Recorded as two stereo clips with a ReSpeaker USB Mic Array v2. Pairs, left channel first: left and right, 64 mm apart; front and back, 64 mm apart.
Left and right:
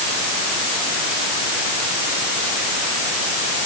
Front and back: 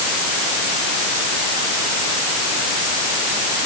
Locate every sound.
Only background noise.